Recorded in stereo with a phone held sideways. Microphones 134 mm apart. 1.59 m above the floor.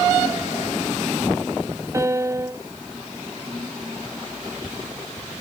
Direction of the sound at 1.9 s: 20° right (ahead or behind).